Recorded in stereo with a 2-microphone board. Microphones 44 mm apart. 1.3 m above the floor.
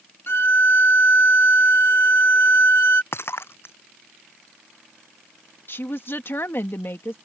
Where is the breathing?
I don't hear breathing.